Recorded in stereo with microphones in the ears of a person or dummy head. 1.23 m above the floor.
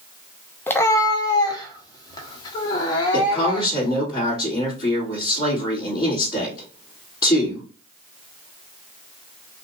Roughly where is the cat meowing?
Centre.